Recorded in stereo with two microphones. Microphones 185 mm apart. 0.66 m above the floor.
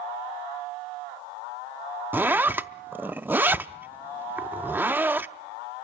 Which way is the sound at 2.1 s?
10° right (ahead or behind).